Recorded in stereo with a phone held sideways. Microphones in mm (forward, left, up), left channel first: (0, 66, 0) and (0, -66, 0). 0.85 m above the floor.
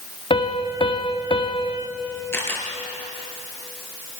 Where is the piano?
40° left (ahead or behind), 1.9 m.